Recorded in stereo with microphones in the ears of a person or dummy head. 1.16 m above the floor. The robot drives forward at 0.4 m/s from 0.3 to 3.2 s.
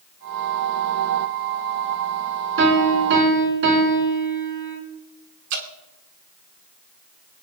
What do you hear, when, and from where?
2.6 s a piano: 70° right (ahead or behind), 4.5 m
5.5 s dripping: 60° right (ahead or behind), 2.0 m